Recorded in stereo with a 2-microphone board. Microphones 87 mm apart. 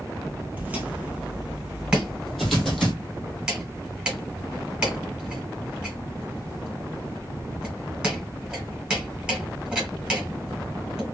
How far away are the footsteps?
About 1.0 m.